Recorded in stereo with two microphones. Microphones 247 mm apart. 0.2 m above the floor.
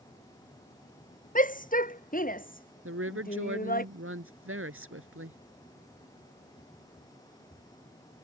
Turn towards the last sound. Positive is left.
turn(degrees=-65)  # may be behind; listen again after turning